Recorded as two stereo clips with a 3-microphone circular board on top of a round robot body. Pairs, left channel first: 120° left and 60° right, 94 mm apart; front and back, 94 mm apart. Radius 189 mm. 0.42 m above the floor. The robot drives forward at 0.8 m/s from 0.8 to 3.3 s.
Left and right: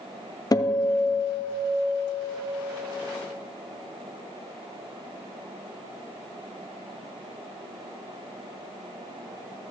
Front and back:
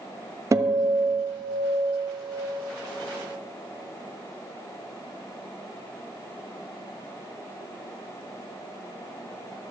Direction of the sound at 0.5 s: 140° left.